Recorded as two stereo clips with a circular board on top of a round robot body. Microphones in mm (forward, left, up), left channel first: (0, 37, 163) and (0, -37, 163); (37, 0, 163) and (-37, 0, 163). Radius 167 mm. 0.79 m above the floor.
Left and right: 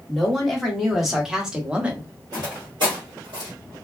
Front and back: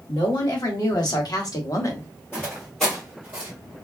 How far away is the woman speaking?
About 1.9 m.